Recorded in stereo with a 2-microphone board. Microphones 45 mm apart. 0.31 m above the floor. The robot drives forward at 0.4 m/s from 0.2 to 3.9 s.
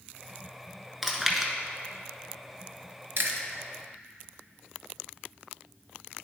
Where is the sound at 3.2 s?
60° right (ahead or behind), 1.0 m.